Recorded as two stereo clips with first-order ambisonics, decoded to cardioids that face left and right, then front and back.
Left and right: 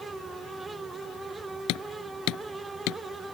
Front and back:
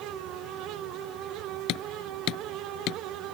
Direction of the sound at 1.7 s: 45° left.